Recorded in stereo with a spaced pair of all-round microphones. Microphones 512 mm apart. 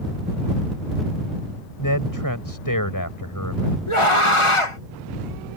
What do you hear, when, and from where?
1.8 s a man speaking: 40° left (ahead or behind)
3.9 s a scream: 75° left (ahead or behind)